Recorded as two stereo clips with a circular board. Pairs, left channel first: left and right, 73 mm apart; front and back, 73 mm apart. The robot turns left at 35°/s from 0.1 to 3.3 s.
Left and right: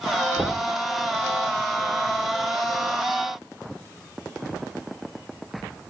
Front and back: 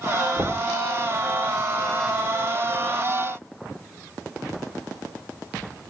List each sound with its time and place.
0.4 s knocking: 160° right, 1.0 m; by 0.7 s 175° right, 1.0 m